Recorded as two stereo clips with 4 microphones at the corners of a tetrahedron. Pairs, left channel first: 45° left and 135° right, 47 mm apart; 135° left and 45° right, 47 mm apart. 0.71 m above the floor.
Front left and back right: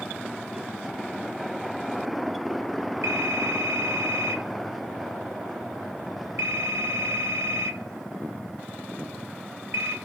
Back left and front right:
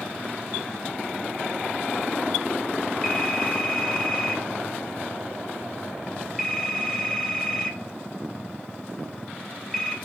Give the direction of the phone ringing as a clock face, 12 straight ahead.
5 o'clock.